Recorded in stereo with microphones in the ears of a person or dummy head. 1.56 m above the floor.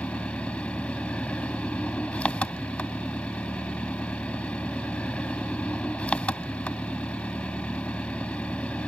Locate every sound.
0.0 s an engine running: 5° left (ahead or behind)